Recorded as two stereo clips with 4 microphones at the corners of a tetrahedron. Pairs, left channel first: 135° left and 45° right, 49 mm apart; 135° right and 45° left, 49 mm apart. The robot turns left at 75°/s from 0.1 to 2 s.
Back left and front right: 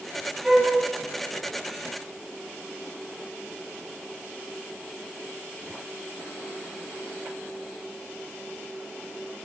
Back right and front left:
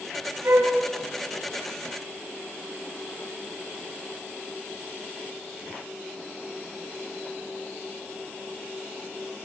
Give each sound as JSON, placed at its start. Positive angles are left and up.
{"t": 0.4, "sound": "a flute", "azimuth_deg": 35, "distance_m": 10.0}